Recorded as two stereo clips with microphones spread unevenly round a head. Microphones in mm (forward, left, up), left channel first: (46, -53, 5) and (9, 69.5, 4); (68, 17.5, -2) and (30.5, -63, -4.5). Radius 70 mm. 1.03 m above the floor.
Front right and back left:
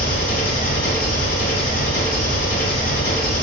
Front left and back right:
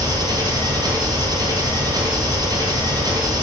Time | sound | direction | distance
0.0 | an engine running | 75° right | 2.5 m